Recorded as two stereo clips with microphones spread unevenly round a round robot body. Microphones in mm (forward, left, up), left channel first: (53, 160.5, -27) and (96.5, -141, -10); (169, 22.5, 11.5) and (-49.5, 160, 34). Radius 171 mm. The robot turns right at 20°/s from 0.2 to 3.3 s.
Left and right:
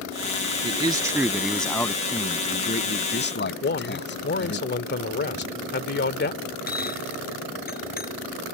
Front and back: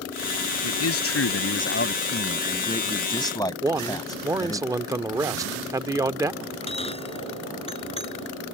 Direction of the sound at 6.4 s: 35° left.